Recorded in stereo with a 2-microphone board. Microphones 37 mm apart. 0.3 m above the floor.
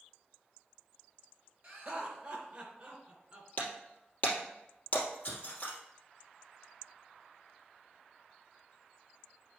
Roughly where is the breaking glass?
Left.